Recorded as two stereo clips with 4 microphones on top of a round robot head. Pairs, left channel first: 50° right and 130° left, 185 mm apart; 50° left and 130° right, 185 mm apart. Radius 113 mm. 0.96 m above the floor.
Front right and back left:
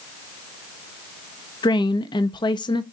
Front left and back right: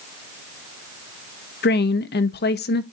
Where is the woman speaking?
20° left, 0.9 m.